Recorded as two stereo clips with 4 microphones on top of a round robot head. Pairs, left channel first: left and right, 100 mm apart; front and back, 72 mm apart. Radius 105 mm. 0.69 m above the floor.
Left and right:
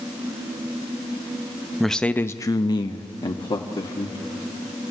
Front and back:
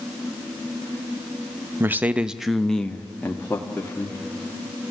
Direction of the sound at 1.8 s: Straight behind.